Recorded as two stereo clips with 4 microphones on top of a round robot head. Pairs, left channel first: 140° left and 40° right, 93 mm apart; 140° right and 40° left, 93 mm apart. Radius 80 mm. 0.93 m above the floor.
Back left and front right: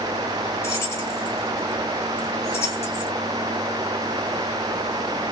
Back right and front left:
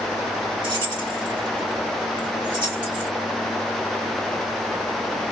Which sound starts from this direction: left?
Keys jangling, at 0.6 s.